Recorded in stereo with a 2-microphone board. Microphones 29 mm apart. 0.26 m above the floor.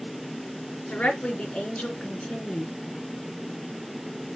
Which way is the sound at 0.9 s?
40° left (ahead or behind).